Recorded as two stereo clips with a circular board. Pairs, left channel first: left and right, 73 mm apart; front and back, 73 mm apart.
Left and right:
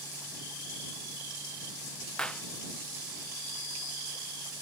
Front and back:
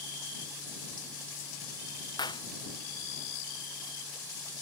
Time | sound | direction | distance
2.2 | a clap | 10° left | ?